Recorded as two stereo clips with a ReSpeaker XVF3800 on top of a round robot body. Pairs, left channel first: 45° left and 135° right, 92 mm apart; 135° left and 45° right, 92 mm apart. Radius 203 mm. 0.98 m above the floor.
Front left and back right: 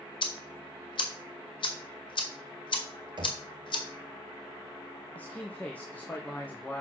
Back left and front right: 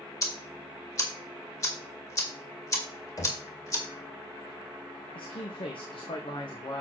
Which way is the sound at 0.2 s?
80° left.